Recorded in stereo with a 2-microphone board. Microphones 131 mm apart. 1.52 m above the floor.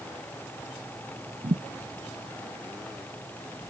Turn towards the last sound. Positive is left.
turn(degrees=-60)  # may be behind; listen again after turning